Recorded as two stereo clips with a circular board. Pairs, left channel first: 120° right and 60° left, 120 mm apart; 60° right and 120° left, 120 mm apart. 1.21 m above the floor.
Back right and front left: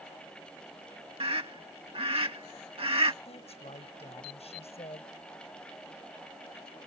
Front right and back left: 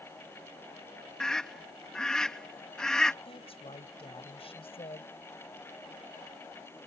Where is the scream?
25° left.